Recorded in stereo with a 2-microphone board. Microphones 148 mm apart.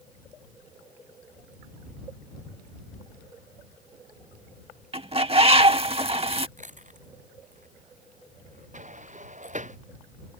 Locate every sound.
4.9 s a bird: 40° right (ahead or behind)
6.6 s chewing: 55° right (ahead or behind)
8.7 s a sliding door: 55° right (ahead or behind)